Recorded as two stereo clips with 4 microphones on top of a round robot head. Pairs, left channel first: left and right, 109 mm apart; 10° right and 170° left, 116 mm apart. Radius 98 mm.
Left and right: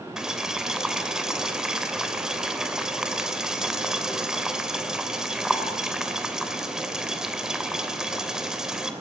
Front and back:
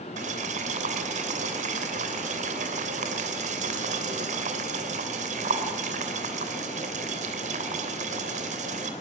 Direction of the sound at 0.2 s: 175° right.